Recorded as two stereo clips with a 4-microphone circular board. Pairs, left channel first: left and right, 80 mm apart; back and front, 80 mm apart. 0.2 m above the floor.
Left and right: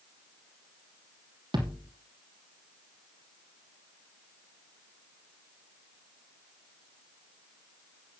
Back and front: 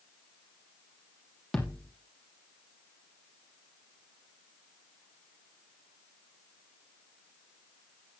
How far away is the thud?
About 3 m.